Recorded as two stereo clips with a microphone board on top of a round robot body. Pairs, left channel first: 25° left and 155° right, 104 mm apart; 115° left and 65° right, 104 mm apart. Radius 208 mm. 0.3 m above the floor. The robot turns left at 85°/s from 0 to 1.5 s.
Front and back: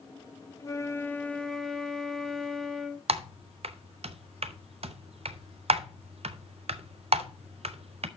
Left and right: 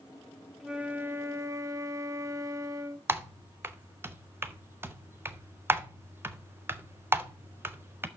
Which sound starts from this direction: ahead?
A flute, at 0.6 s.